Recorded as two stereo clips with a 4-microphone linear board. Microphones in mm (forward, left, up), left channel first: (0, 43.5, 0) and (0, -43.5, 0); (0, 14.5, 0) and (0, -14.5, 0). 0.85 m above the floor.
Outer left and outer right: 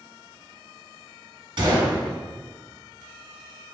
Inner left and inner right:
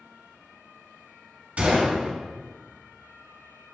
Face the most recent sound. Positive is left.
turn(degrees=-65)  # may be behind; listen again after turning